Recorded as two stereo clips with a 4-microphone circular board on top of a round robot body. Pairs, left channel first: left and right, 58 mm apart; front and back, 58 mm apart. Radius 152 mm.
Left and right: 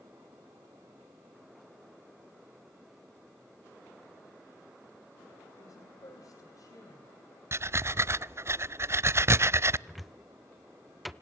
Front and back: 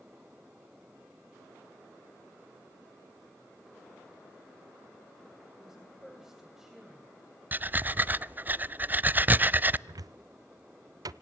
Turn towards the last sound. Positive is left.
turn(degrees=180)